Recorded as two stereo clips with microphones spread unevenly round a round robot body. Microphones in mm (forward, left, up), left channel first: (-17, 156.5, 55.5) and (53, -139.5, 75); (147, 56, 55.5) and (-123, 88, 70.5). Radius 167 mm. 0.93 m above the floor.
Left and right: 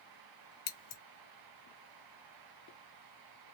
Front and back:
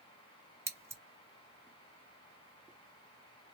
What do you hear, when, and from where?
0.7 s scissors: 90° left, 1.4 m